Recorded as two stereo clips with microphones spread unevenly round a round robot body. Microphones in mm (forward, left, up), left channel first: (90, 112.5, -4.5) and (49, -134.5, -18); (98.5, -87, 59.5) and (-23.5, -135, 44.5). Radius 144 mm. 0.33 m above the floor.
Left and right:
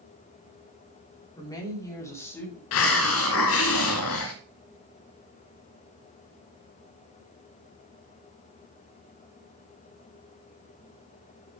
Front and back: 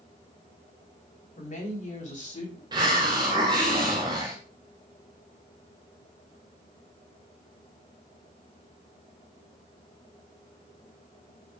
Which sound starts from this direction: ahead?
A woman speaking, at 1.4 s.